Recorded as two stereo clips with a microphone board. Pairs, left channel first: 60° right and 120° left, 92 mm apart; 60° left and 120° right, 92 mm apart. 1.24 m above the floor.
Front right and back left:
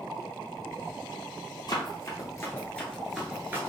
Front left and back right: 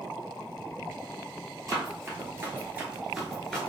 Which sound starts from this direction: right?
Running footsteps, at 1.7 s.